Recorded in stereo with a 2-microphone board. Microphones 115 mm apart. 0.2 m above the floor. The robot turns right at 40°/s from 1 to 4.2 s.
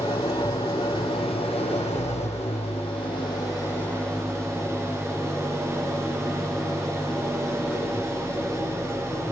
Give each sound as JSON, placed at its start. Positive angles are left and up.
{"t": 0.0, "sound": "an engine running", "azimuth_deg": 45, "distance_m": 5.5}